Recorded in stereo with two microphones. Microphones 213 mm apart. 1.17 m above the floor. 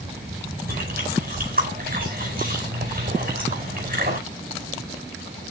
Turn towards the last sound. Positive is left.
turn(degrees=-45)  # may be behind; listen again after turning